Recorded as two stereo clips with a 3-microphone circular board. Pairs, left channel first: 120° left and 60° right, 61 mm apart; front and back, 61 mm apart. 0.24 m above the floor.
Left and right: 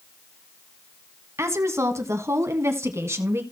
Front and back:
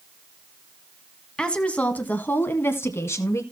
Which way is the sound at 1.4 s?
70° right.